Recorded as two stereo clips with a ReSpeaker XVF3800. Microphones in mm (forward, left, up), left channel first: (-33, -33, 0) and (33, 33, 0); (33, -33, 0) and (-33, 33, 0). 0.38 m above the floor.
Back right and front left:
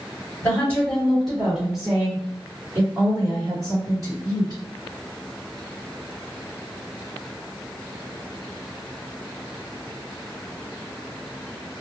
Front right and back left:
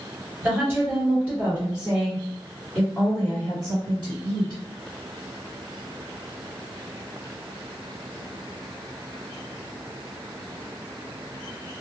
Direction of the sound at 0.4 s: 175° left.